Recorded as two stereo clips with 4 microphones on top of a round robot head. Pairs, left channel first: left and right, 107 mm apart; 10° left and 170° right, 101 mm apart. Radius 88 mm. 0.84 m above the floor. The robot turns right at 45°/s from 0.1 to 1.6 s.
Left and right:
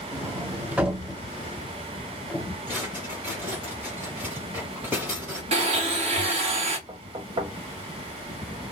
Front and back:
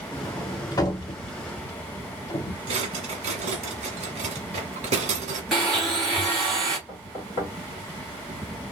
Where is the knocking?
50° right, 1.3 m.